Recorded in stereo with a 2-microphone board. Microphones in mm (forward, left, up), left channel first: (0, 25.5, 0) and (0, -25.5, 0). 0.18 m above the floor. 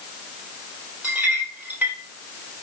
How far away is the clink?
About 3.5 m.